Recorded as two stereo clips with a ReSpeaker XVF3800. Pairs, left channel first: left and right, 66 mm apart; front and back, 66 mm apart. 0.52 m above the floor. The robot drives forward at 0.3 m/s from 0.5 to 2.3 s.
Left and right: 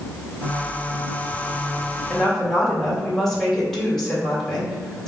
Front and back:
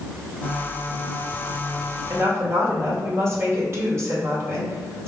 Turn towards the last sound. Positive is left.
turn(degrees=170)